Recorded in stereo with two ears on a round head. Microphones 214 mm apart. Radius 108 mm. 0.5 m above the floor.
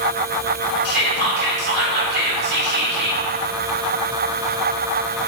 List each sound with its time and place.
0.8 s whispering: 45° right (ahead or behind), 1.8 m